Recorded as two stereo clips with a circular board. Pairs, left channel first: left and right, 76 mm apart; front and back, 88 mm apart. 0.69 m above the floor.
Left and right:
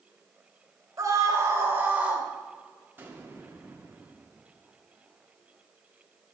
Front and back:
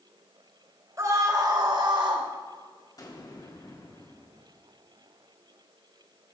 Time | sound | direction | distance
1.0 | a scream | 125° right | 3 m
3.0 | an explosion | 30° right | 1.7 m